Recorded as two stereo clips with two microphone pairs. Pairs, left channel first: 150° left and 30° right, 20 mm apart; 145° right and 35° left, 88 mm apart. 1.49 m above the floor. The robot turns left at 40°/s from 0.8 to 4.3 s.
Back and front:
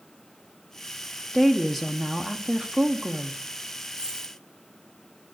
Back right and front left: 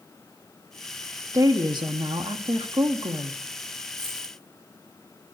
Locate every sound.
1.3 s a woman speaking: 90° left, 0.9 m; by 3.4 s 5° left, 0.9 m
3.9 s a dropped coin: 25° left, 2 m; by 4.3 s 10° left, 2 m